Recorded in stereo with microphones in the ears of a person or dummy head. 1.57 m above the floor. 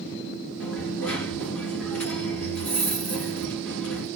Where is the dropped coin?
10° left (ahead or behind), 1.7 m.